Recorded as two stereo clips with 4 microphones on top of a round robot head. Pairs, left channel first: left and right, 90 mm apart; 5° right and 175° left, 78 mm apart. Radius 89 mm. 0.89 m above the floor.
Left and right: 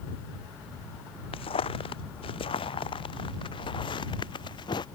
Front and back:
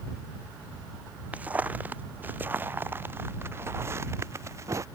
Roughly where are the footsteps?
Left.